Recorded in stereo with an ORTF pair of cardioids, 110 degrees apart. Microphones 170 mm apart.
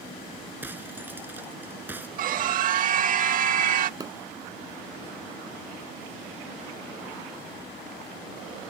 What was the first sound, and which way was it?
Breaking glass, 10° right.